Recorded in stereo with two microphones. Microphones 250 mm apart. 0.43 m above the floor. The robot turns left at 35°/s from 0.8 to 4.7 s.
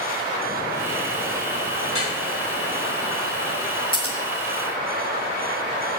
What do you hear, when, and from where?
1.9 s dripping: 55° left (ahead or behind), 3.5 m; by 2.1 s 60° left (ahead or behind), 3.5 m
3.9 s scissors: 20° left (ahead or behind), 2.5 m; by 4.2 s 30° left (ahead or behind), 2.5 m